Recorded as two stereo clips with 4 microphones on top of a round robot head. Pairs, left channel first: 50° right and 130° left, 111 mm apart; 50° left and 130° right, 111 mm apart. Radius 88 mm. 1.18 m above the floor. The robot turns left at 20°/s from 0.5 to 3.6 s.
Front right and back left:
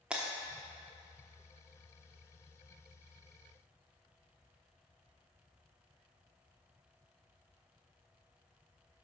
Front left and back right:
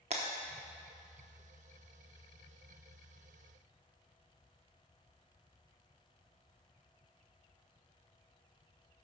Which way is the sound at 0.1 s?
150° right.